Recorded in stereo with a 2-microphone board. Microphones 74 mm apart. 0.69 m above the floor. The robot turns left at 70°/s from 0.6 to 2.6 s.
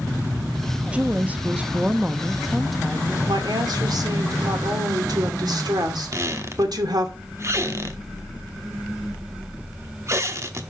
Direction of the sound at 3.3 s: 65° right (ahead or behind).